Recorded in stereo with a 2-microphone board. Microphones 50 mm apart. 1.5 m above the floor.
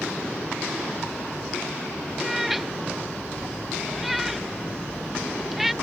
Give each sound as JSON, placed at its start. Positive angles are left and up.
{"t": 2.2, "sound": "a cat meowing", "side_deg": -5}